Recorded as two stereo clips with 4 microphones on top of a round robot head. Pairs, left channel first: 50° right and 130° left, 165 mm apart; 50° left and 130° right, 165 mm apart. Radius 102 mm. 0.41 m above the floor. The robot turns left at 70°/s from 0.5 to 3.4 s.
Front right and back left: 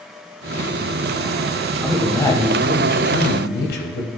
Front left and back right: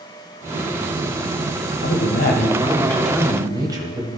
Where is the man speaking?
50° left, 2 m; by 4.1 s 65° right, 2 m.